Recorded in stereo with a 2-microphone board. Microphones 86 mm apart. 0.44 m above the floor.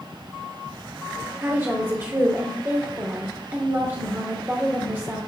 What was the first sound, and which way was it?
A woman speaking, 25° right (ahead or behind).